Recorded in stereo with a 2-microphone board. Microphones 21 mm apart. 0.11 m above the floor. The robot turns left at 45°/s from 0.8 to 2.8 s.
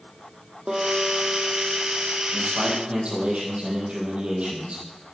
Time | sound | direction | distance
0.7 | a guitar | 55° right | 2.0 m
2.3 | a man speaking | 70° right (ahead or behind) | 4 m